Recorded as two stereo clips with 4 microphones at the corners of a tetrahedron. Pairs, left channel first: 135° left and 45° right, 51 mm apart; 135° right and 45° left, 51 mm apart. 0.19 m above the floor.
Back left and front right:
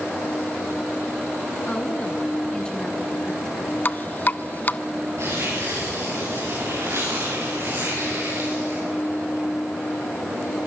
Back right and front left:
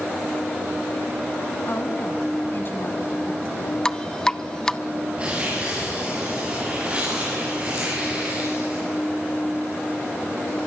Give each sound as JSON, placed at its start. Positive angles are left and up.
{"t": 1.7, "sound": "a woman speaking", "azimuth_deg": -155, "distance_m": 2.0}
{"t": 3.9, "sound": "dripping", "azimuth_deg": 155, "distance_m": 0.6}
{"t": 5.2, "sound": "tearing paper", "azimuth_deg": -20, "distance_m": 9.5}